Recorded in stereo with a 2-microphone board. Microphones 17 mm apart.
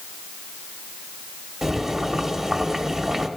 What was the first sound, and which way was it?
Boiling, 25° right (ahead or behind).